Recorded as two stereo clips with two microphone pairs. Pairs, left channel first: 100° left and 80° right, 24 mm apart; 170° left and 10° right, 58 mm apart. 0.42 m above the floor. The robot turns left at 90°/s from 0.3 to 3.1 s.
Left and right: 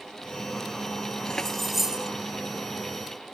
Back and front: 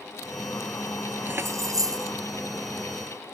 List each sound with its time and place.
1.3 s keys jangling: 50° left; by 2.1 s 25° right